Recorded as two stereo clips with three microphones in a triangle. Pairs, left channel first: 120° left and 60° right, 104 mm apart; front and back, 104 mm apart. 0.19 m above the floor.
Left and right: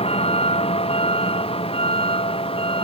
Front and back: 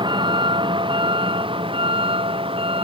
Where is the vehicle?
140° left; by 2.9 s 150° left.